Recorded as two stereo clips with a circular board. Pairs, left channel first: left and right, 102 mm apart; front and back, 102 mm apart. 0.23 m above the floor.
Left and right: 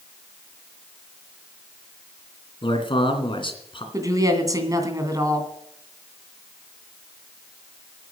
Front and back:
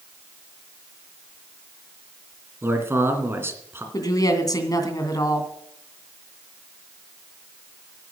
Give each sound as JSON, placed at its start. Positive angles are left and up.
{"t": 2.6, "sound": "a man speaking", "azimuth_deg": 115, "distance_m": 2.5}
{"t": 3.9, "sound": "a woman speaking", "azimuth_deg": -45, "distance_m": 2.5}